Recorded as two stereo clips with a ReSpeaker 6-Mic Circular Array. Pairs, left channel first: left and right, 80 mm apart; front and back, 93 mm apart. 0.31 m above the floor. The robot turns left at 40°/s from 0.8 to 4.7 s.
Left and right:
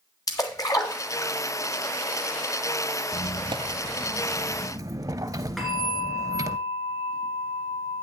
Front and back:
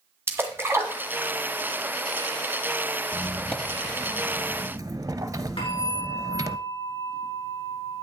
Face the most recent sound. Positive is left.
turn(degrees=5)